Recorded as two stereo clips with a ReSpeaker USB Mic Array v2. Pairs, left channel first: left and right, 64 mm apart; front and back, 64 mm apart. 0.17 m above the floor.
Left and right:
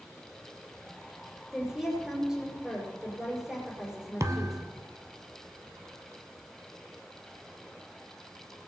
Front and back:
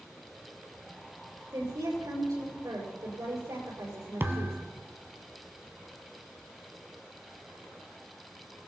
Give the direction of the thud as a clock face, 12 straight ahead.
4 o'clock.